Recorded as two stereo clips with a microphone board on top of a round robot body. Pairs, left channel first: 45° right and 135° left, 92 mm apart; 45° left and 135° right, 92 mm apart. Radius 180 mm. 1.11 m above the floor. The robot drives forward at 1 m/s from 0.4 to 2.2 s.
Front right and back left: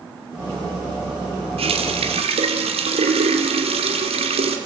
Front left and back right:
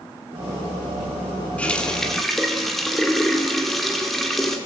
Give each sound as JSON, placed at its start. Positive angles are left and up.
{"t": 1.6, "sound": "a running tap", "azimuth_deg": 120, "distance_m": 2.5}